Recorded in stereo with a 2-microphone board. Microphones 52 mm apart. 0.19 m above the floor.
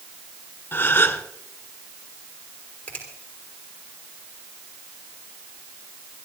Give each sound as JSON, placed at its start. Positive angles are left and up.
{"t": 0.7, "sound": "a gasp", "side_deg": 40, "distance_m": 1.5}
{"t": 2.9, "sound": "a finger snap", "side_deg": 20, "distance_m": 6.0}